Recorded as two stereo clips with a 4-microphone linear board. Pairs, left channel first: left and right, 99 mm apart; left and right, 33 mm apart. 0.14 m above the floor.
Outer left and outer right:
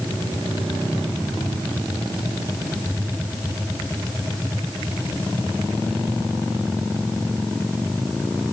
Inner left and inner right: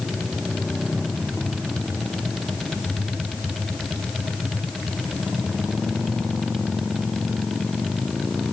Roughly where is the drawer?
No drawer in this recording.